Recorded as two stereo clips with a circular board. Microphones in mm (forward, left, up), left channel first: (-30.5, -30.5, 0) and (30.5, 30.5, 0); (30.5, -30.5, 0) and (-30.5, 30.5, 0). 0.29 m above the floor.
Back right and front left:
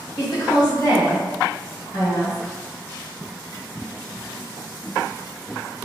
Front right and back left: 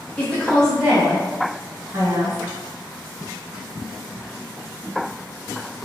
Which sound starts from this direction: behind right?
A woman speaking, at 0.2 s.